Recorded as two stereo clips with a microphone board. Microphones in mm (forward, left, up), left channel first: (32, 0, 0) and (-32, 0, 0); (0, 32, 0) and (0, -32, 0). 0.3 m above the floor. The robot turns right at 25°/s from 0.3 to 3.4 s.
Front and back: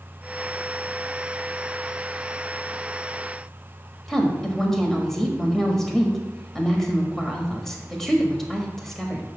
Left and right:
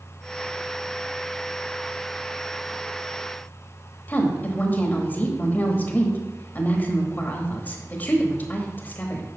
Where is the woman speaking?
80° left, 1.2 m.